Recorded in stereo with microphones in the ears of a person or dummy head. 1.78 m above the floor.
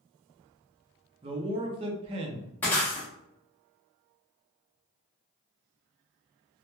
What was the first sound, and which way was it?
A man speaking, 30° right (ahead or behind).